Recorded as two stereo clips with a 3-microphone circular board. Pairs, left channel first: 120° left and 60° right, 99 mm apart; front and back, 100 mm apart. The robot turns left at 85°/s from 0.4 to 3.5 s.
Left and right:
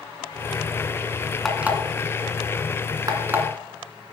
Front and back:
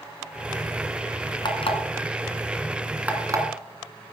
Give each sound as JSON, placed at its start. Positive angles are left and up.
{"t": 1.4, "sound": "an alarm clock", "azimuth_deg": 30, "distance_m": 2.0}